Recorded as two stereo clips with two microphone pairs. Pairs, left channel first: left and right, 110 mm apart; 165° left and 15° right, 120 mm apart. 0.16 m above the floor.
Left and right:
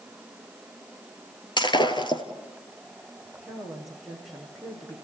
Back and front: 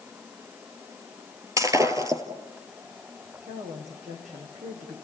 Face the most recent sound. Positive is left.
turn(degrees=0)